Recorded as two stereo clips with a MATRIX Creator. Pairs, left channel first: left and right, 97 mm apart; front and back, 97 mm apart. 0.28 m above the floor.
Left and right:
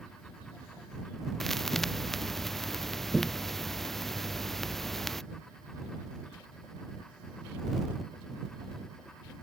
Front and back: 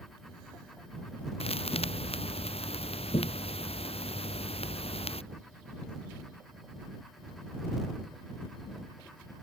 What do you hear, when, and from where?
1.4 s a thud: 5° left